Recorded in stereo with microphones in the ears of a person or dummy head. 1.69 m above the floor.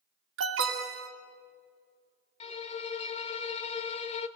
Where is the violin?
30° left (ahead or behind), 1.1 m.